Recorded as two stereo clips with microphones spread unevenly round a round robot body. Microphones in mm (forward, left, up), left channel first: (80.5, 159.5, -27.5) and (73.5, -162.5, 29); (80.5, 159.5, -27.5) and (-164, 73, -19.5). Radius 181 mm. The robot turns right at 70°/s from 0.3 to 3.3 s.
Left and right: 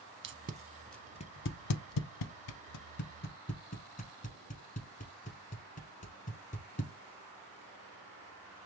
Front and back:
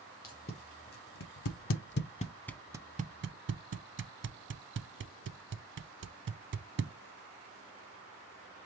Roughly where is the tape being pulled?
Ahead right.